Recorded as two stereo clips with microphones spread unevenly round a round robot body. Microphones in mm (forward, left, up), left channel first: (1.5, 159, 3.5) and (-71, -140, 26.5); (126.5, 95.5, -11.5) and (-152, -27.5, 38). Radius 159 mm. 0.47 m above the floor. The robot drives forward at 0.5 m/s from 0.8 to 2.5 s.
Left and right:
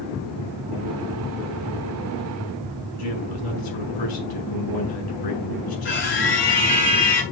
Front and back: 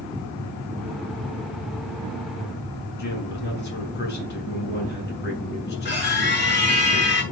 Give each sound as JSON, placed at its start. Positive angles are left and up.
{"t": 3.0, "sound": "a man speaking", "azimuth_deg": 80, "distance_m": 6.5}
{"t": 5.8, "sound": "a scream", "azimuth_deg": 80, "distance_m": 8.5}